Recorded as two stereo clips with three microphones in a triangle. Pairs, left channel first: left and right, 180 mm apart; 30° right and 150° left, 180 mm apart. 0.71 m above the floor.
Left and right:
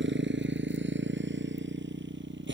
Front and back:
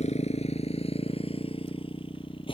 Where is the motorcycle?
85° right; by 2.5 s 95° right.